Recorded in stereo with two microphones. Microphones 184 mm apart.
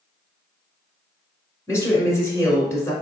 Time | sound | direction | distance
1.7 | a woman speaking | 15° left (ahead or behind) | 1.2 m